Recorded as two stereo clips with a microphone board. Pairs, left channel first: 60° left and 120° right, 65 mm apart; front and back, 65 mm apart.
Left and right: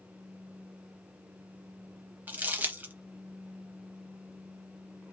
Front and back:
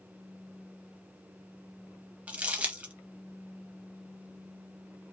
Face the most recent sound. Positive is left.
turn(degrees=-140)